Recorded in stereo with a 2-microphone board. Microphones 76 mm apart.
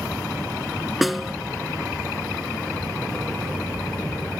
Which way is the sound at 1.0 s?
Centre (ahead or behind).